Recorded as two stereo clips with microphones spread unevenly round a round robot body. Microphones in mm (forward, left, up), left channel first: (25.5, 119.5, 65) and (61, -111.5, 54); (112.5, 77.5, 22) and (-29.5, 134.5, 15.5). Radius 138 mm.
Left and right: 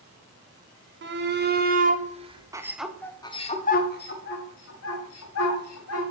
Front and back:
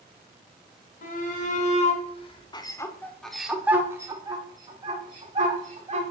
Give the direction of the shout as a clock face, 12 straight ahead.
2 o'clock.